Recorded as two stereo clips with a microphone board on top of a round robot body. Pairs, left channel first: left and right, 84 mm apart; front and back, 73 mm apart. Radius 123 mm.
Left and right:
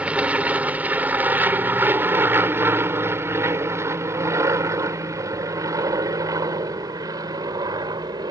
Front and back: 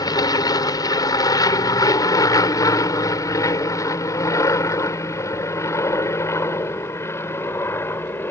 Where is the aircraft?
15° right; by 8.3 s 55° right.